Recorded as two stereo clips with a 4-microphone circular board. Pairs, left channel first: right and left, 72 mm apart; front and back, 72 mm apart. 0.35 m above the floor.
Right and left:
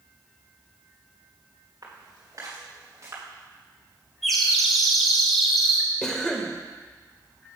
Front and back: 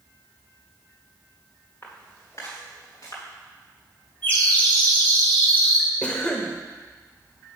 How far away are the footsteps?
About 3 m.